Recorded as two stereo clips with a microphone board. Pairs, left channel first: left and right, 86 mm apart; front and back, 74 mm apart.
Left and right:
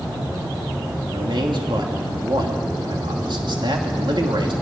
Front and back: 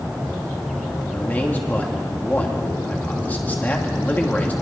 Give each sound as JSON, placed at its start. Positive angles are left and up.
{"t": 1.1, "sound": "a man speaking", "azimuth_deg": -70, "distance_m": 2.5}